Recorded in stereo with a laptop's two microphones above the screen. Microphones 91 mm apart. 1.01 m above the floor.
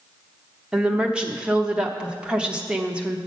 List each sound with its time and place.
0.7 s a woman speaking: 10° right (ahead or behind), 0.7 m